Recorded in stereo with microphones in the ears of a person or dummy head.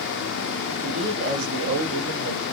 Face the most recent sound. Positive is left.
turn(degrees=-45)  # may be behind; listen again after turning